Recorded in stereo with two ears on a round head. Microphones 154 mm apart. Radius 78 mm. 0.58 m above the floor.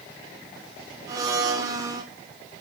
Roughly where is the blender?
Right.